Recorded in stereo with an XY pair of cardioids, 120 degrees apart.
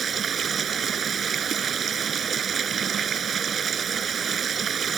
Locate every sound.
0.0 s running water: 40° right